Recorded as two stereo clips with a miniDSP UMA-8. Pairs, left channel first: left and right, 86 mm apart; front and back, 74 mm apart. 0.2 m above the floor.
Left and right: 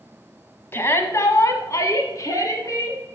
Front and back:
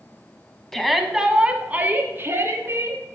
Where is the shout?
75° left, 1.2 m; by 3.0 s 135° left, 2 m.